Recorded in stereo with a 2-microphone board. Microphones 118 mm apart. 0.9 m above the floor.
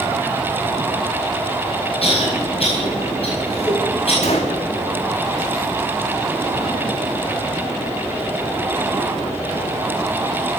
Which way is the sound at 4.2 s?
65° left (ahead or behind).